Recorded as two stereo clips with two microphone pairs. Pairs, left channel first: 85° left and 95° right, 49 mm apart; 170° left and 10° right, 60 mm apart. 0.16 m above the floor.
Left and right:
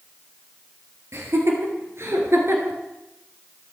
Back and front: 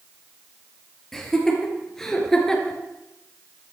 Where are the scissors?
No scissors in this recording.